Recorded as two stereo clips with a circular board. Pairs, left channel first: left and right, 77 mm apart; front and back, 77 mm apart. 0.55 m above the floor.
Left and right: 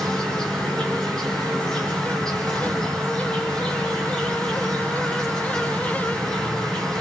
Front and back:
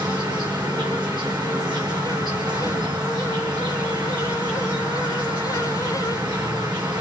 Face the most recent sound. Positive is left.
turn(degrees=170)